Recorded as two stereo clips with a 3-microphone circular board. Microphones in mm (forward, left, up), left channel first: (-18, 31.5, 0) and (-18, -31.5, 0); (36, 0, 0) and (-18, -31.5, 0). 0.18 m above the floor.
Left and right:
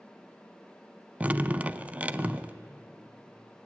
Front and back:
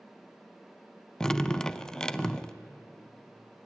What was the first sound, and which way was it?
Dripping, 40° right.